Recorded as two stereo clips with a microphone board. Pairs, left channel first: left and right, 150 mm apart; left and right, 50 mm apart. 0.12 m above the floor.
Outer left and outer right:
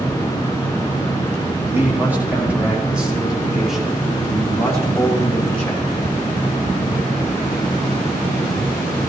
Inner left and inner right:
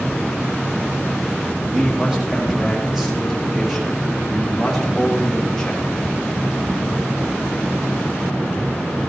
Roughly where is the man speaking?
Centre.